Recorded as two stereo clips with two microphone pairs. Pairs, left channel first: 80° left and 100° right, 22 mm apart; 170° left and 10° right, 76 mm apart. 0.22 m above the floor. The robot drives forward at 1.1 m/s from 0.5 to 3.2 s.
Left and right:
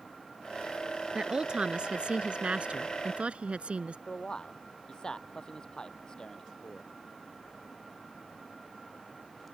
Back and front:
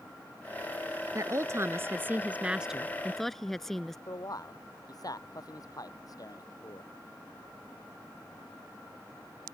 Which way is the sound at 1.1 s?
50° right.